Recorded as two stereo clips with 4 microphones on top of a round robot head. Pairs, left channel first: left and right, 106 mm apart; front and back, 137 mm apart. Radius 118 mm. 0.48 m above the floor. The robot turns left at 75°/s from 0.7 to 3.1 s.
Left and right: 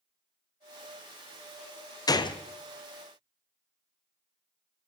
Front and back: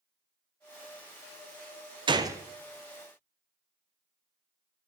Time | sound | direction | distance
2.1 | a gunshot | 135° left | 0.5 m